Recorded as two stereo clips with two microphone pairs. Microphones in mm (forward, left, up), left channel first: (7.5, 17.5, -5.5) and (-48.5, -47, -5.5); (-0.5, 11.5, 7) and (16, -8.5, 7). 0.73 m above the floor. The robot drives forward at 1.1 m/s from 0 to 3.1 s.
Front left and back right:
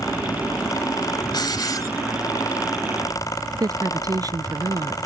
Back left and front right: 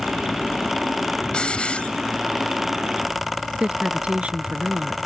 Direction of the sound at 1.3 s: 80° left.